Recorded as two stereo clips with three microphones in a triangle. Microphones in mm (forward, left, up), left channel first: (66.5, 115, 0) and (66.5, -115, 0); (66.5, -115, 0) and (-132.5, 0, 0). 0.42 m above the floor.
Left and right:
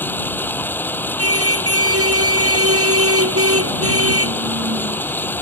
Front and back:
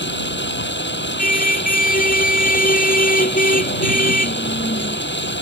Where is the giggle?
No giggle in this recording.